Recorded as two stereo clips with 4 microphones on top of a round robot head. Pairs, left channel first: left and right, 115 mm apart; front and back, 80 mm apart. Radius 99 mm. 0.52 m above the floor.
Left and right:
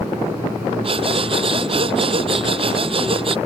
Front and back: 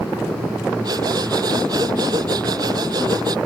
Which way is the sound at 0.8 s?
130° right.